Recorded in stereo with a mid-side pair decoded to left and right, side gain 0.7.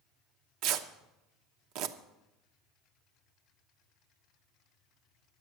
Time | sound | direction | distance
0.6 | tearing paper | 65° right | 0.9 m